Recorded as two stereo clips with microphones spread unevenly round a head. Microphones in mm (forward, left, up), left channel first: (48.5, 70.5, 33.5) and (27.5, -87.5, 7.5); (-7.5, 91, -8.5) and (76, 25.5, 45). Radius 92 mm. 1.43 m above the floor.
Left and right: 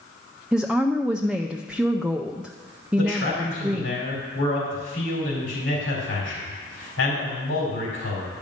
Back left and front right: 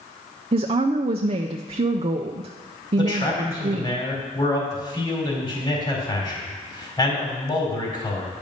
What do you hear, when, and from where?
0.5 s a woman speaking: 10° right, 0.5 m
3.0 s a man speaking: 90° left, 4 m